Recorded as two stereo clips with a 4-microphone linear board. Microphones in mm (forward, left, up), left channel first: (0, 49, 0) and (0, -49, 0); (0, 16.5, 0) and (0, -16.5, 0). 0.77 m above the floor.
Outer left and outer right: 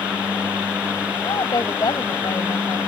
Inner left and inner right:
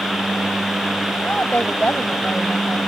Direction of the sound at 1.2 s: 50° left (ahead or behind).